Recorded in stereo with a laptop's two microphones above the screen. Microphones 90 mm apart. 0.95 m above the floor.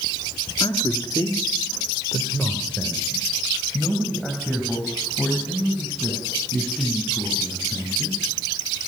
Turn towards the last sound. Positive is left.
turn(degrees=-5)  # may be behind; listen again after turning